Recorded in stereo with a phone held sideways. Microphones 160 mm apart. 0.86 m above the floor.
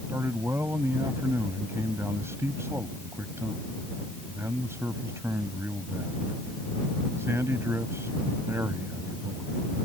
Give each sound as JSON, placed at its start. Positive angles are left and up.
{"t": 0.1, "sound": "a man speaking", "side_deg": -15}